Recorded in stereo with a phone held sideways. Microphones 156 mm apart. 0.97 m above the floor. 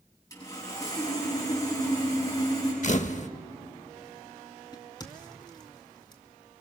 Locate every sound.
0.3 s sawing: 25° left (ahead or behind), 8.5 m
2.8 s a camera shutter: 50° left (ahead or behind), 0.6 m
4.7 s a crack: 30° left (ahead or behind), 2 m